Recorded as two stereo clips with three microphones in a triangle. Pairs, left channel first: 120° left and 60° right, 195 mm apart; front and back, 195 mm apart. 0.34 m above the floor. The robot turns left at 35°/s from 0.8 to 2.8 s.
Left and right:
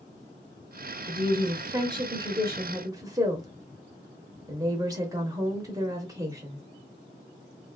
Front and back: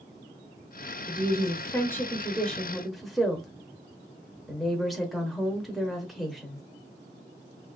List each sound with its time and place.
1.1 s a woman speaking: 30° right, 0.8 m; by 6.6 s 90° right, 0.8 m